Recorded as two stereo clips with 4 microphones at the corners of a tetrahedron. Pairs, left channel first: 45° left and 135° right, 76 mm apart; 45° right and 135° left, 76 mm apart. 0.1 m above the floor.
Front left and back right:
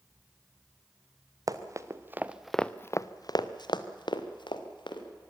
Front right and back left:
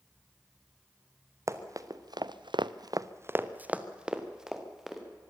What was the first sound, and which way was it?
Running footsteps, 175° right.